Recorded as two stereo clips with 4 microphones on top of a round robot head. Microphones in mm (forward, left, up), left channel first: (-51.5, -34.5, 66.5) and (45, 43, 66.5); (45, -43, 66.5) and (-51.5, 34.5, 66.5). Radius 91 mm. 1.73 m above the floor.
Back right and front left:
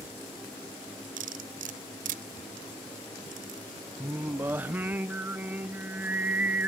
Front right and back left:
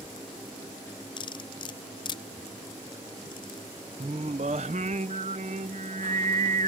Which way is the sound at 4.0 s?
110° left.